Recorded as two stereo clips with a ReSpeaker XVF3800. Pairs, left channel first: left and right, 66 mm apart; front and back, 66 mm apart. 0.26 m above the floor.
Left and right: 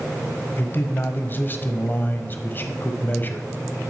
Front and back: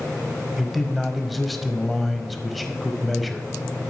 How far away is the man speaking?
About 1.2 m.